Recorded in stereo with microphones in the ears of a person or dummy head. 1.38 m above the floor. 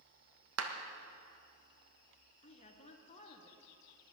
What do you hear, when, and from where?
0.6 s a clap: 85° right, 1.3 m
2.4 s a woman speaking: 40° left (ahead or behind), 1.3 m